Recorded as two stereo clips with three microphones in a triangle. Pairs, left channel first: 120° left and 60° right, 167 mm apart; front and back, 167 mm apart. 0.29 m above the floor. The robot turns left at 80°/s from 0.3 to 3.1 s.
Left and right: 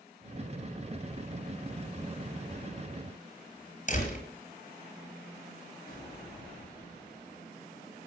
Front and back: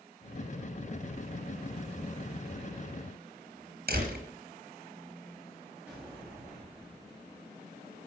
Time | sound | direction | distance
3.9 | a door slam | 160° left | 4.5 m
5.9 | an explosion | 100° left | 9 m